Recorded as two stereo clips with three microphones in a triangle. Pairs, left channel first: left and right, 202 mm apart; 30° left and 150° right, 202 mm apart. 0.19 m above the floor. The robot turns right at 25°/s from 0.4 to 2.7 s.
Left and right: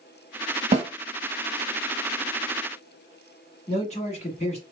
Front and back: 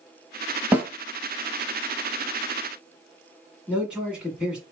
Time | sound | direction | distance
0.7 | a snare drum | 75° right | 0.9 m
3.7 | a man speaking | 125° left | 1.4 m